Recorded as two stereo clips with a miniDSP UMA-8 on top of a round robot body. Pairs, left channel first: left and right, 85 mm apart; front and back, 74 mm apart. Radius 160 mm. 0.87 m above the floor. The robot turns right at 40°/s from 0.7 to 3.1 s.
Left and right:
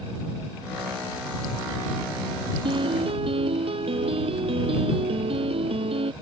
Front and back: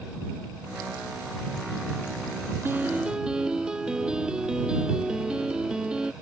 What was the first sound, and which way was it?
A piano, 120° right.